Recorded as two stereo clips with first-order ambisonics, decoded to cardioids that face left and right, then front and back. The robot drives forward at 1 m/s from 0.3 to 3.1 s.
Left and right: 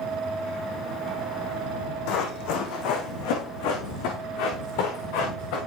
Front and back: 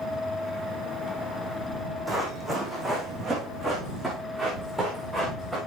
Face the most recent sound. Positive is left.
turn(degrees=100)